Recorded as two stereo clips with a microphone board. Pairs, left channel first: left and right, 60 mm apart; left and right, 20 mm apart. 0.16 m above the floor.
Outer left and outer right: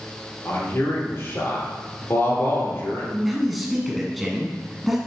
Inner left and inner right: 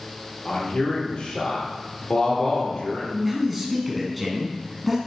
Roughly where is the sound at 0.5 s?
Left.